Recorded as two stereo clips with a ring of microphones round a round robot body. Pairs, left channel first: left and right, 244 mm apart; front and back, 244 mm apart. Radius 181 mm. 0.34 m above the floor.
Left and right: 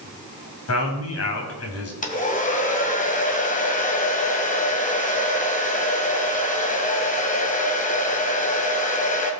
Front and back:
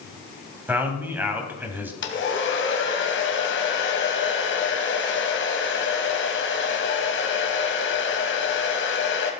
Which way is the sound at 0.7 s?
100° left.